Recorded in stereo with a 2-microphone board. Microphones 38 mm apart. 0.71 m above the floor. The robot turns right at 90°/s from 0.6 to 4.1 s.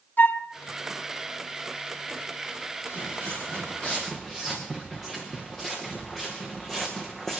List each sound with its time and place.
0.2 s a flute: 55° left (ahead or behind), 1.5 m
2.9 s footsteps: 55° left (ahead or behind), 6.5 m; by 7.4 s 10° left (ahead or behind), 3.5 m